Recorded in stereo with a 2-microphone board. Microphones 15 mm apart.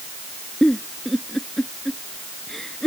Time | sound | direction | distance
0.6 | a giggle | 15° left (ahead or behind) | ?